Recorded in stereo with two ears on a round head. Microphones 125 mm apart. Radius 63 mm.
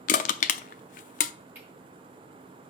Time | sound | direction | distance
0.1 | crushing | 60° left (ahead or behind) | 0.6 m
1.6 | cutlery clinking | 15° right (ahead or behind) | 4.5 m